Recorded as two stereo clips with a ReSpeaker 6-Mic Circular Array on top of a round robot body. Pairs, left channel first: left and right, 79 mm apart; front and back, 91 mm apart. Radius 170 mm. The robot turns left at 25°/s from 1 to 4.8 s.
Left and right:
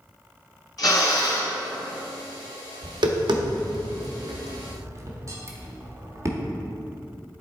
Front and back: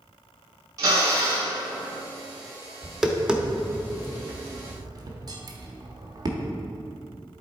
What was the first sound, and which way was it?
A drill, 130° left.